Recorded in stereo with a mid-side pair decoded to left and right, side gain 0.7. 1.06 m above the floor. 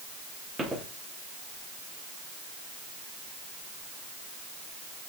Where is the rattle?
No rattle in this recording.